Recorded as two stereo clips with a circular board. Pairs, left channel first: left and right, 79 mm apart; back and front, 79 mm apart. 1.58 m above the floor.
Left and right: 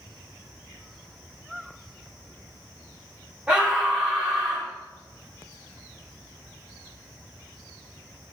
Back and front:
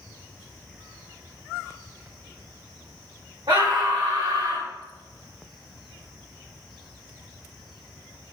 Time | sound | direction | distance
3.5 | a scream | 10° right | 4 m